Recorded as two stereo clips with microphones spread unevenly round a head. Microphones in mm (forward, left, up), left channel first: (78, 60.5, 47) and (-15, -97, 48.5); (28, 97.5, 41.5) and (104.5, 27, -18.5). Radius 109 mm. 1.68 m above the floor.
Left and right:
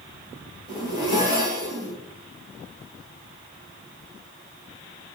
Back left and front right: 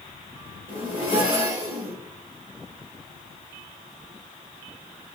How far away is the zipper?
About 1.6 m.